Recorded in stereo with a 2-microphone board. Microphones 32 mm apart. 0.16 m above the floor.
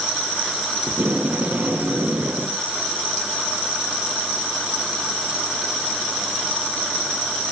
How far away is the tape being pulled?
About 2 m.